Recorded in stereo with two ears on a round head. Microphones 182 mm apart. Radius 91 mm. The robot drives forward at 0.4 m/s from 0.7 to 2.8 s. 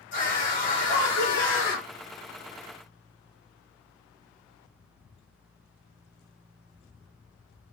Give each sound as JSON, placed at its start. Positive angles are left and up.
{"t": 0.1, "sound": "a scream", "side_deg": 60, "distance_m": 1.7}